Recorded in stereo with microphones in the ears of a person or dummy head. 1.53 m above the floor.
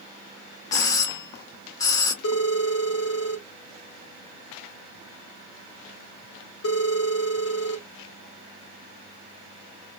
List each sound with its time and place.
0.7 s a doorbell: 15° left (ahead or behind), 0.6 m
2.2 s a phone ringing: 70° left (ahead or behind), 1.4 m